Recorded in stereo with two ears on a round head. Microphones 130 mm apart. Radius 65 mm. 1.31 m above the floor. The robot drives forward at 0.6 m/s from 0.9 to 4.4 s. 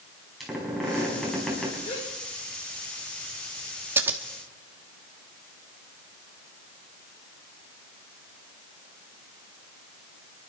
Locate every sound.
0.4 s a squeak: centre (ahead or behind), 6 m
1.8 s a gasp: 55° left (ahead or behind), 8 m
4.0 s scissors: 15° right (ahead or behind), 1.3 m